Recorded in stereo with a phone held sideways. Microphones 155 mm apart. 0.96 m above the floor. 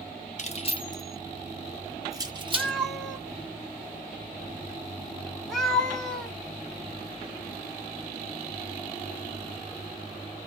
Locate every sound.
0.4 s keys jangling: 45° left (ahead or behind), 0.7 m; by 2.7 s 35° right (ahead or behind), 1.0 m
2.5 s a cat meowing: centre (ahead or behind), 0.9 m